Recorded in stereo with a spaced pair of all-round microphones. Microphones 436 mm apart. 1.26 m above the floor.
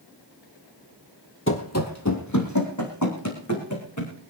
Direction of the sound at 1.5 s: 30° left (ahead or behind).